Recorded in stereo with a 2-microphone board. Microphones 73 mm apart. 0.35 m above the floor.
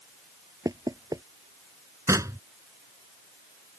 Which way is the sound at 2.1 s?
45° right (ahead or behind).